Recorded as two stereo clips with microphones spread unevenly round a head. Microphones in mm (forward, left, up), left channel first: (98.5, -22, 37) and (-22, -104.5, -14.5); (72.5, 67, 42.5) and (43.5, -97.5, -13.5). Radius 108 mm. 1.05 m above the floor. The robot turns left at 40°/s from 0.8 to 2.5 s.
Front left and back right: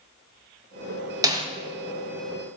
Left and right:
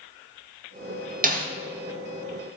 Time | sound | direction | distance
1.2 | a snare drum | 90° right | 1.4 m